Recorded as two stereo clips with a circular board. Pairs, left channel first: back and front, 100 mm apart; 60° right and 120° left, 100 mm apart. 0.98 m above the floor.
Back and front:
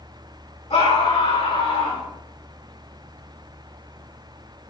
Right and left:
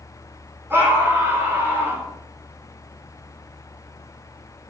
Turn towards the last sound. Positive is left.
turn(degrees=-175)